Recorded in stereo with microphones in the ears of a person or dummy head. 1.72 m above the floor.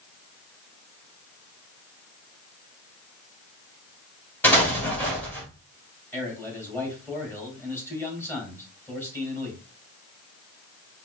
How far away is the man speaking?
About 2.5 m.